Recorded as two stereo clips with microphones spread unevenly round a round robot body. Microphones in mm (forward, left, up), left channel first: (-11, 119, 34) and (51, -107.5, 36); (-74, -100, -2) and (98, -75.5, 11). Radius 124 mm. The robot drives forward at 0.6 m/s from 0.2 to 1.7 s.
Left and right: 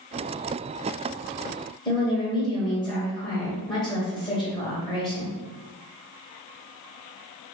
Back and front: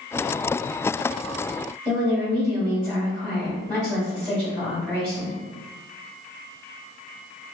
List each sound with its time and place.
1.9 s a woman speaking: 120° left, 1.4 m